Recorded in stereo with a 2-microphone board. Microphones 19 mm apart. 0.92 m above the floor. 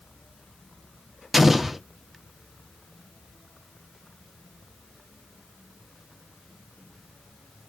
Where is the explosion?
5° right (ahead or behind), 0.5 m.